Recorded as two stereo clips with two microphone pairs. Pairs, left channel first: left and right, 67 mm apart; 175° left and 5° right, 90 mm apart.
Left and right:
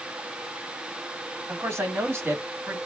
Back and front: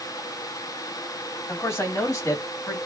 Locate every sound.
1.5 s a man speaking: 125° right, 2.5 m; by 2.8 s 145° right, 2.5 m